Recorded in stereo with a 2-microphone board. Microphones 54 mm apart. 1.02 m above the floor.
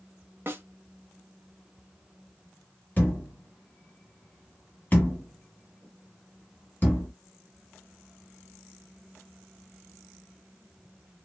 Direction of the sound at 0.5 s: 45° right (ahead or behind).